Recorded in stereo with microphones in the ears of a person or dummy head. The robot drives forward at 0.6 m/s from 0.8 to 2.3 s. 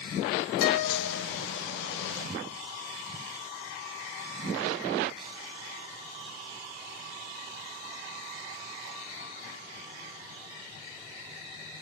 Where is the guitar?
55° left (ahead or behind), 1.8 m; by 1.2 s 50° left (ahead or behind), 2.0 m.